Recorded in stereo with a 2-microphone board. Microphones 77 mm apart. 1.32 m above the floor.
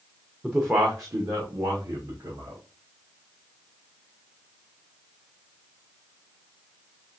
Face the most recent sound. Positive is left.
turn(degrees=-60)  # may be behind; listen again after turning